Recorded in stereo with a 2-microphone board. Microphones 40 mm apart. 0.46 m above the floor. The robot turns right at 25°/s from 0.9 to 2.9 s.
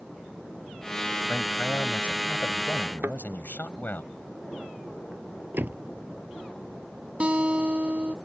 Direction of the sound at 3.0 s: 60° right (ahead or behind).